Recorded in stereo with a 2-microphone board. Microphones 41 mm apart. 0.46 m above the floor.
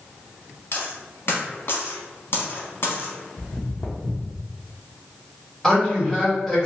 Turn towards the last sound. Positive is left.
turn(degrees=10)  # may be behind; listen again after turning